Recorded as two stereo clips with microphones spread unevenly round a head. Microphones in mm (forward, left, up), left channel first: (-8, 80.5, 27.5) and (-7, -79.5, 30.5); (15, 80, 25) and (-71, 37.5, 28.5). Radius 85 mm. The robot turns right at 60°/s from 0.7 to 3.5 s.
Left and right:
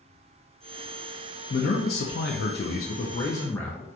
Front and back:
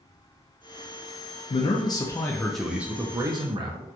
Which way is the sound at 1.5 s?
50° left.